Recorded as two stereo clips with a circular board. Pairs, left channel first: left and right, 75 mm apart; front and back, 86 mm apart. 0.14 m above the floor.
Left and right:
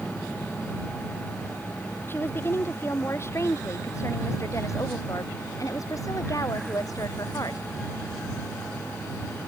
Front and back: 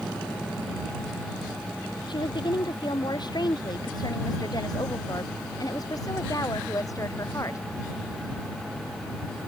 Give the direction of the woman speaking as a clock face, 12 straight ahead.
11 o'clock.